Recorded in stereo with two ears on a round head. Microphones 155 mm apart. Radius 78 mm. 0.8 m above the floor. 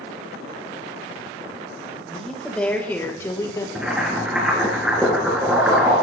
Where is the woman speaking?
Centre (ahead or behind), 3 m; by 3.6 s 25° left (ahead or behind), 2.5 m.